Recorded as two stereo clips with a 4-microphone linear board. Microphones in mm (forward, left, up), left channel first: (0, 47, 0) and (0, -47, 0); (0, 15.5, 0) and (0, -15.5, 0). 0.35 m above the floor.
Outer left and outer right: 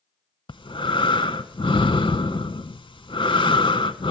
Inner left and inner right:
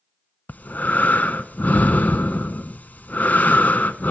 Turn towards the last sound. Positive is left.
turn(degrees=65)  # may be behind; listen again after turning